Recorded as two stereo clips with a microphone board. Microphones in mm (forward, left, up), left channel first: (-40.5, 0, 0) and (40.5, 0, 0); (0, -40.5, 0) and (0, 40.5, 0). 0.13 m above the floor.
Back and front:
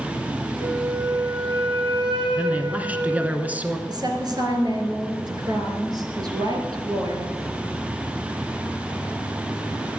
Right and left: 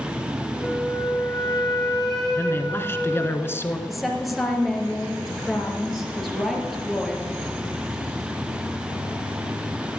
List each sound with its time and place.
0.6 s a flute: 5° right, 4 m
2.4 s a man speaking: 55° right, 1.3 m
3.9 s a woman speaking: straight ahead, 2.5 m